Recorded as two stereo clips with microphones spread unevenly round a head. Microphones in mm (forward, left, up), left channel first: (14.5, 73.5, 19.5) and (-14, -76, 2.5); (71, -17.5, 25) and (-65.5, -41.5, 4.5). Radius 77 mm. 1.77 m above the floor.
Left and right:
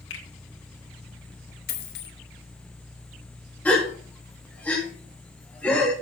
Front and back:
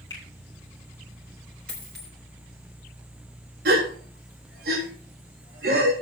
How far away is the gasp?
About 3.5 m.